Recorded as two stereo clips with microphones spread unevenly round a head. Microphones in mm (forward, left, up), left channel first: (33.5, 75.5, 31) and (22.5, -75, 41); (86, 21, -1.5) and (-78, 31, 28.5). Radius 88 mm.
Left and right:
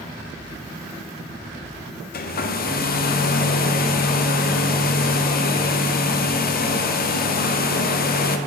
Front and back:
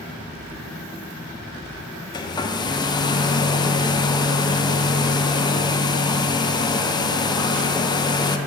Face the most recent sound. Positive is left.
turn(degrees=60)